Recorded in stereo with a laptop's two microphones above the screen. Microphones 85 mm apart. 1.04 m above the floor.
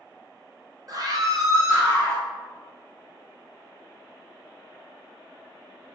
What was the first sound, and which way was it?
A scream, 45° right (ahead or behind).